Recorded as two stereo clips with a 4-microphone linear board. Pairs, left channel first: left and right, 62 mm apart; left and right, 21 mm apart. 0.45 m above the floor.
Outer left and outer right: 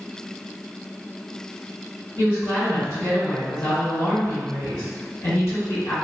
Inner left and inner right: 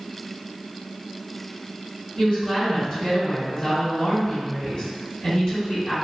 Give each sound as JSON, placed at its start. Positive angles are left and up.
{"t": 2.2, "sound": "a woman speaking", "side_deg": 50, "distance_m": 1.8}